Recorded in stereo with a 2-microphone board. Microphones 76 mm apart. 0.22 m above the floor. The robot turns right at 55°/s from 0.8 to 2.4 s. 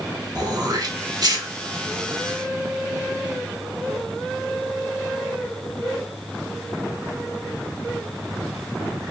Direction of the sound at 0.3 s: 55° right (ahead or behind).